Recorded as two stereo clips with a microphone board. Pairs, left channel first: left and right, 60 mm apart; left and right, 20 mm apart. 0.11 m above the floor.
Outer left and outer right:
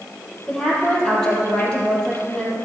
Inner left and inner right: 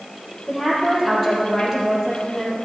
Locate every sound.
0.5 s a woman speaking: 10° left (ahead or behind), 3.5 m